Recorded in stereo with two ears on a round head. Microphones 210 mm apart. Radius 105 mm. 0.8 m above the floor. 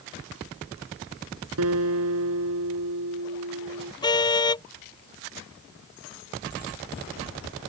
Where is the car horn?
20° left (ahead or behind).